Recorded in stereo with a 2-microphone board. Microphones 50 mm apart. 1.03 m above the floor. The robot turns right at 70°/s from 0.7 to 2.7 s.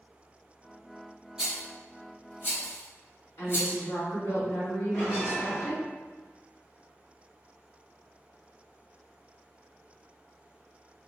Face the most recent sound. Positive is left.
turn(degrees=65)  # may be behind; listen again after turning